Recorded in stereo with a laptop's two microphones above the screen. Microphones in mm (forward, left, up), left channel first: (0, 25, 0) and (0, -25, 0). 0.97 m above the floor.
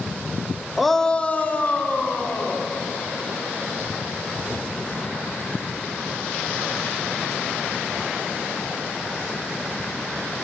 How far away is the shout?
About 0.6 m.